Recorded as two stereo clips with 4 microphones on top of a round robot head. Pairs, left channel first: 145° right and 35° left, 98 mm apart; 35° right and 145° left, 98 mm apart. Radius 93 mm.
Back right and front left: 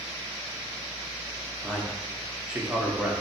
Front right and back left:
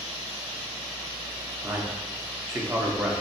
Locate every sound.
1.6 s a man speaking: 105° left, 0.7 m